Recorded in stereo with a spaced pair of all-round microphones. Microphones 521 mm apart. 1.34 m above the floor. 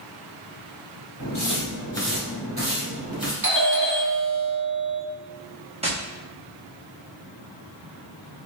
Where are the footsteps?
45° left (ahead or behind), 1.8 m; by 3.3 s 45° right (ahead or behind), 2.5 m.